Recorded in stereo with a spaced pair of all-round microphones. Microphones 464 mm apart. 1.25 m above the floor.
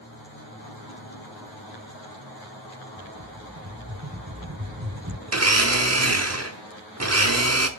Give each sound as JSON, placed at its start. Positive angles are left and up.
{"t": 3.0, "sound": "a rattle", "side_deg": -30, "distance_m": 1.7}
{"t": 5.3, "sound": "a blender", "side_deg": -35, "distance_m": 0.9}